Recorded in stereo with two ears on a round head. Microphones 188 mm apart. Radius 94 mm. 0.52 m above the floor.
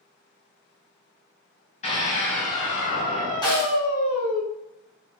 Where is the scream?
35° left (ahead or behind), 3.5 m; by 4.4 s 40° left (ahead or behind), 2 m.